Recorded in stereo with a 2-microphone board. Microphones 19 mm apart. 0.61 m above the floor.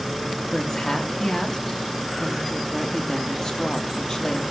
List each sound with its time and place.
0.5 s a woman speaking: 40° left (ahead or behind), 0.9 m